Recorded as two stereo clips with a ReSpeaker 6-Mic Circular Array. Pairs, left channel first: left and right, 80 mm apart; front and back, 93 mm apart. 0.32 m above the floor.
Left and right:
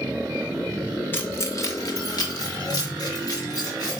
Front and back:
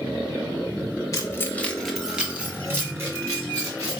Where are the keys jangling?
35° left, 0.8 m; by 4.0 s 130° left, 2 m.